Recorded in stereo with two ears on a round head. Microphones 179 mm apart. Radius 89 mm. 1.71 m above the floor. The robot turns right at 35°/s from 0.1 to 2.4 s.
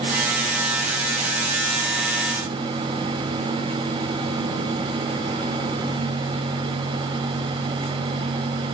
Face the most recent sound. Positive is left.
No sound to turn to.